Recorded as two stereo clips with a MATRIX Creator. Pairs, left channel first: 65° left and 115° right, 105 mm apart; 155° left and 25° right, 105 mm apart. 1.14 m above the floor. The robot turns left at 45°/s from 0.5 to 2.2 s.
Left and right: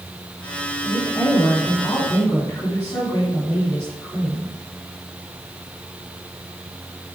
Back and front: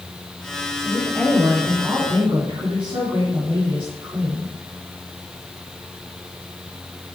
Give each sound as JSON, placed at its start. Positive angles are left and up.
{"t": 0.8, "sound": "a woman speaking", "azimuth_deg": 75, "distance_m": 3.0}